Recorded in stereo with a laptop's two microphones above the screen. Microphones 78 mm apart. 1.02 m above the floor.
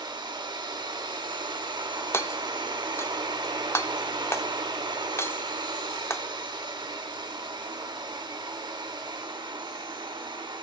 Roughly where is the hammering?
Left.